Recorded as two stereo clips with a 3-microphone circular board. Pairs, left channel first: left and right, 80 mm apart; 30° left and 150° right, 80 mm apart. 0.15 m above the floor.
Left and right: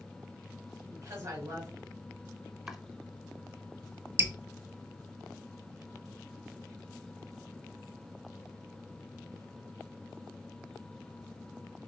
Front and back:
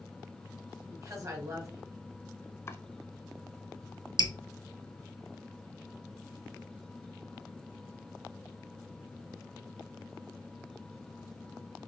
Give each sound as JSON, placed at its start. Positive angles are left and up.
{"t": 0.9, "sound": "a woman speaking", "azimuth_deg": -130, "distance_m": 2.0}
{"t": 2.7, "sound": "chopping", "azimuth_deg": -10, "distance_m": 0.5}
{"t": 4.2, "sound": "dripping", "azimuth_deg": -150, "distance_m": 0.6}